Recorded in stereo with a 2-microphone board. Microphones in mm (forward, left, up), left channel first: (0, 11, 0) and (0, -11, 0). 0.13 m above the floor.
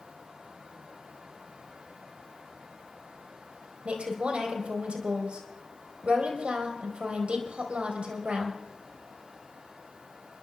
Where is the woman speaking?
60° right (ahead or behind), 3.5 m.